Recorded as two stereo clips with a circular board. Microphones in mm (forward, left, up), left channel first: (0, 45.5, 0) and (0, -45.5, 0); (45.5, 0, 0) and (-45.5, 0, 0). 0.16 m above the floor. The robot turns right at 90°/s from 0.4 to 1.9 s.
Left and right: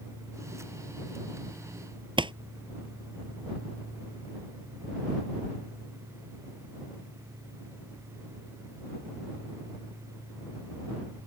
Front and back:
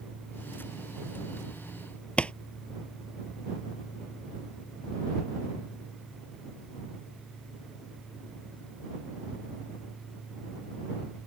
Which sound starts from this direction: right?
A pop, at 2.2 s.